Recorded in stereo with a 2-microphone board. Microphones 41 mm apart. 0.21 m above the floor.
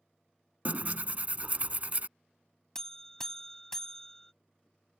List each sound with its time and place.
0.7 s tearing paper: 40° right (ahead or behind)
2.8 s a buzzer: 15° left (ahead or behind)